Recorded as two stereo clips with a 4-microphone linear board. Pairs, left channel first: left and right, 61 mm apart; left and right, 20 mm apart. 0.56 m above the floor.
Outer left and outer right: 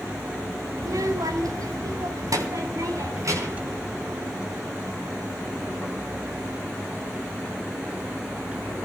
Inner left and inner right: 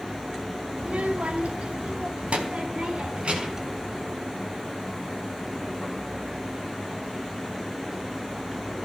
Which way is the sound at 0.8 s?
70° right (ahead or behind).